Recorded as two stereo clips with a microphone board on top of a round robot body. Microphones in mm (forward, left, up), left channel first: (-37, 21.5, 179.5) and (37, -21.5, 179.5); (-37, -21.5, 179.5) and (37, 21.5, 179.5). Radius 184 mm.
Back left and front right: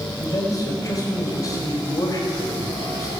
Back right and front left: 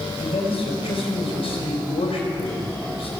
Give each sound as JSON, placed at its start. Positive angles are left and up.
{"t": 0.2, "sound": "a man speaking", "azimuth_deg": -160, "distance_m": 5.5}